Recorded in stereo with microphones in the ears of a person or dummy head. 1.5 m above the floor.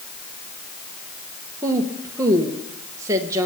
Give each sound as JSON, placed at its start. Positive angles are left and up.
{"t": 1.6, "sound": "a woman speaking", "side_deg": -20, "distance_m": 1.6}